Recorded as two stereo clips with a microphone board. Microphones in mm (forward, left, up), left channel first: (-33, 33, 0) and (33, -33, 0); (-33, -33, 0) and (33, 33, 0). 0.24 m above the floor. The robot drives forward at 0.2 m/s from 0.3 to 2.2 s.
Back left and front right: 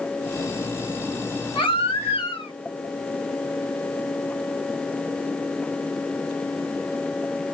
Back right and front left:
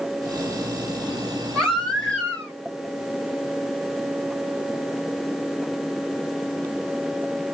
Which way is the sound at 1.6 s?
140° left.